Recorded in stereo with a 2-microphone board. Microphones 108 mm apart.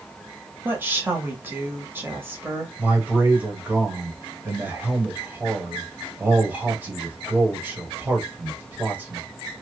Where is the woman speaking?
20° right (ahead or behind), 0.9 m.